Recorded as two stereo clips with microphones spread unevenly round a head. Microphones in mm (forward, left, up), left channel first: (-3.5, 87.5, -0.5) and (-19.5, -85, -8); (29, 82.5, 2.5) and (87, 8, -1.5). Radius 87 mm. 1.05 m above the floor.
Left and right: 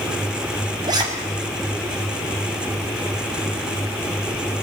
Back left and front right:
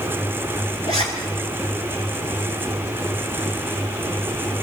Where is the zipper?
160° right, 6 m.